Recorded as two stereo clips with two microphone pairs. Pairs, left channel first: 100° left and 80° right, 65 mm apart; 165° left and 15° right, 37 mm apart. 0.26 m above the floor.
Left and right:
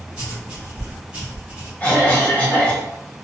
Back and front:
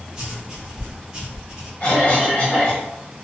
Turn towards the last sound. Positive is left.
turn(degrees=140)